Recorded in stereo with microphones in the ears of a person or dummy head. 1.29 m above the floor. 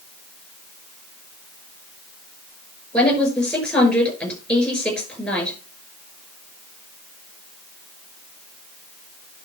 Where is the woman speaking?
10° left (ahead or behind), 5.5 m.